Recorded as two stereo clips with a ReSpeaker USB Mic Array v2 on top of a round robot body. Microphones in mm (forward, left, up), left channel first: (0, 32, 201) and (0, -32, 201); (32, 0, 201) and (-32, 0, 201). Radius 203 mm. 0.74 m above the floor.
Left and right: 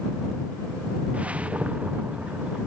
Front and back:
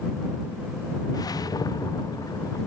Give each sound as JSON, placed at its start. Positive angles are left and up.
{"t": 1.1, "sound": "a whoosh", "azimuth_deg": -20}